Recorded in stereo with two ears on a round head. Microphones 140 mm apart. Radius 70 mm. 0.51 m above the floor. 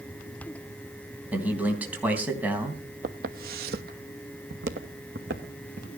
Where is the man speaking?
10° right (ahead or behind), 3.5 m.